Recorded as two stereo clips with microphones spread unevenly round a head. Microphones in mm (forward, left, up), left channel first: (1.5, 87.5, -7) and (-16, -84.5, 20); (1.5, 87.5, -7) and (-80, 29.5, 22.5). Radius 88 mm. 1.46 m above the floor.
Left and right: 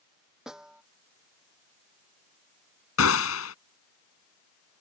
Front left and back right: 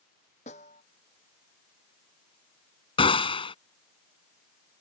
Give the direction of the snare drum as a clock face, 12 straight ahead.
12 o'clock.